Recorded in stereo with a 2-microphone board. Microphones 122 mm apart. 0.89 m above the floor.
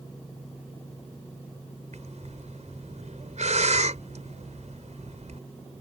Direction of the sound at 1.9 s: 70° right (ahead or behind).